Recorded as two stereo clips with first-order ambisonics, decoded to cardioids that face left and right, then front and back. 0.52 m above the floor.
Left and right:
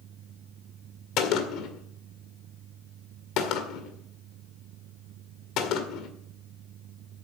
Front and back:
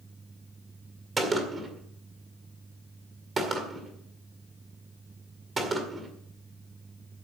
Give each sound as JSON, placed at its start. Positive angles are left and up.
{"t": 1.2, "sound": "a gunshot", "azimuth_deg": 110, "distance_m": 1.9}